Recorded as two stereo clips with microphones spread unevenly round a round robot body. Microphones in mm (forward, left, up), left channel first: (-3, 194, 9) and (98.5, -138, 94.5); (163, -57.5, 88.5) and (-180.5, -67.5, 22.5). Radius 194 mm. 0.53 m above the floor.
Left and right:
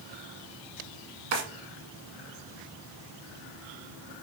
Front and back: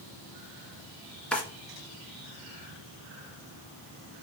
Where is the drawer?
85° right, 1.9 m.